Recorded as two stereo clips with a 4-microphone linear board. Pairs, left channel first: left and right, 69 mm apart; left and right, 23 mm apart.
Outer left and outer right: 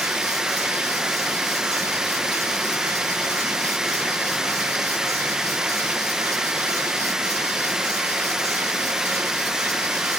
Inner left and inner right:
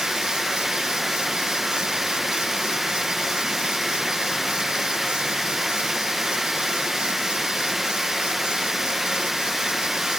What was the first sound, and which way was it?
Running water, 10° right (ahead or behind).